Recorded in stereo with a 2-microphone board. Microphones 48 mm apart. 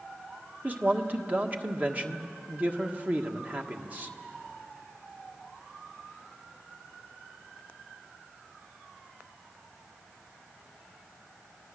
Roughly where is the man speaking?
Right.